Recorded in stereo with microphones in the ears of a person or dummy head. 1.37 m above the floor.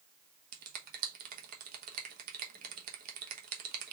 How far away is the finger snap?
About 1.0 m.